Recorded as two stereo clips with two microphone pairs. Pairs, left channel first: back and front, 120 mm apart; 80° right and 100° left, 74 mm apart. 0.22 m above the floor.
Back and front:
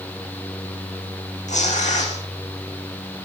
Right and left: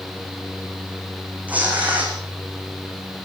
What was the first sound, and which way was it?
Tearing paper, 170° left.